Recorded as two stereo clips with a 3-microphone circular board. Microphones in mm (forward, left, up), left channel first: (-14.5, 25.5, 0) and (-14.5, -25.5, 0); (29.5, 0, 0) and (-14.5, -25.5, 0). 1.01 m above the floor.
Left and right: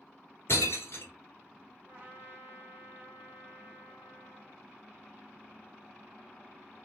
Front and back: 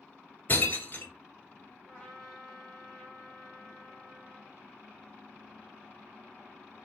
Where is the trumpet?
40° right, 1.5 m.